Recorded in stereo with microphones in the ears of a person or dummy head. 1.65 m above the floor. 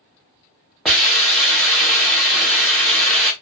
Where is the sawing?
I don't hear sawing.